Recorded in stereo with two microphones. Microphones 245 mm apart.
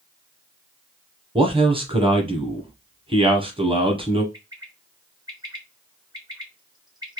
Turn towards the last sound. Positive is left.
turn(degrees=-15)  # may be behind; listen again after turning